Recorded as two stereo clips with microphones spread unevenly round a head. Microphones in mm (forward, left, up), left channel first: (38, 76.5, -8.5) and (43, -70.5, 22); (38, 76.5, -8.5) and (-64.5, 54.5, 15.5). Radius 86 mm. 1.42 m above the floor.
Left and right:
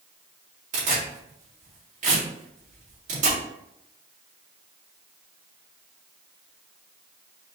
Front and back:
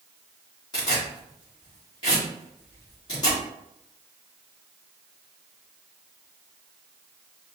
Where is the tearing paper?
60° right, 2.5 m.